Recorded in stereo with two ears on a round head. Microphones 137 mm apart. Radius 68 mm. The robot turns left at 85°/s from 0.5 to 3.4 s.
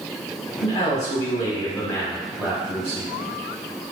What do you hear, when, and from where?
0.6 s a man speaking: 15° left (ahead or behind), 0.9 m; by 3.1 s 25° right (ahead or behind), 0.9 m